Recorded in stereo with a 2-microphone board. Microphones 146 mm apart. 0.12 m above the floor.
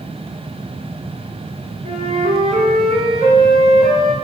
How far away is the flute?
About 1.0 m.